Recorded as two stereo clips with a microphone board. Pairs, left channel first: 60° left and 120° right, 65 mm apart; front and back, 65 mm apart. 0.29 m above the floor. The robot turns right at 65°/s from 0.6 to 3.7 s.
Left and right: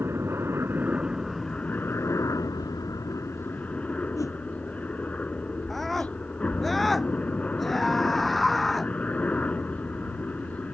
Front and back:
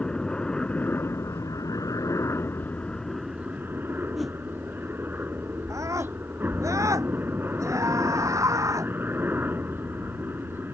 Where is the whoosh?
90° left.